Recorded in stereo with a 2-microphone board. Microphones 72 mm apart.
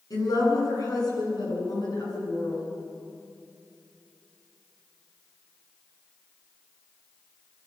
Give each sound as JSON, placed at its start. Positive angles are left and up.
{"t": 0.1, "sound": "a woman speaking", "side_deg": 60, "distance_m": 10.0}